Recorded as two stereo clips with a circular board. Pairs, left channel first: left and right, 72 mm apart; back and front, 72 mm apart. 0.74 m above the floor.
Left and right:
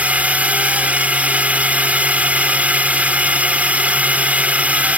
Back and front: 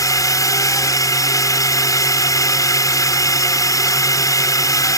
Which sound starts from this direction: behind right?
A drone, at 0.0 s.